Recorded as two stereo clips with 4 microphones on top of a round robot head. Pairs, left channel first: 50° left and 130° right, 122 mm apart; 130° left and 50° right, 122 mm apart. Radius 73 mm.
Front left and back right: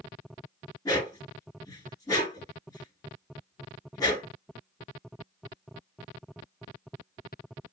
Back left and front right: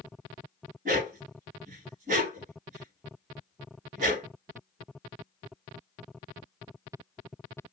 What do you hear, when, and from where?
0.8 s a dog barking: 20° right, 1.8 m